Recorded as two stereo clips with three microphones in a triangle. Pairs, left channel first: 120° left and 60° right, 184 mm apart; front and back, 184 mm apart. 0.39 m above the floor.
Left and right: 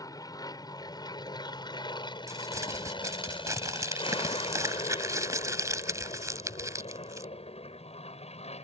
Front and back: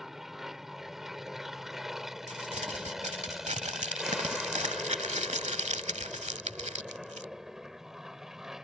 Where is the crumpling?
130° right.